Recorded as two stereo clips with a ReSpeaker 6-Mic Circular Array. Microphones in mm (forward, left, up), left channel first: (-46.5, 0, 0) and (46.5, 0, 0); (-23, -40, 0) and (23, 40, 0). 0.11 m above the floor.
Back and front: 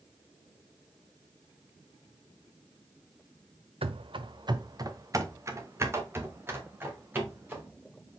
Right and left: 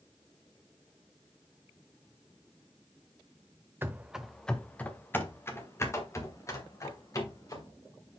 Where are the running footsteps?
5° right, 0.6 m; by 7.7 s 70° right, 3 m.